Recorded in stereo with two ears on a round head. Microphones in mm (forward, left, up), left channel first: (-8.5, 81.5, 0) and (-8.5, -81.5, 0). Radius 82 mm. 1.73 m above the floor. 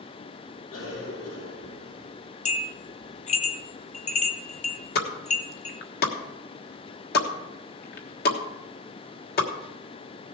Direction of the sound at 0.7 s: 75° left (ahead or behind).